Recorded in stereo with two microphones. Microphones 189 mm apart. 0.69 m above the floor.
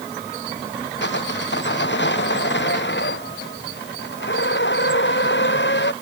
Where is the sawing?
70° left (ahead or behind).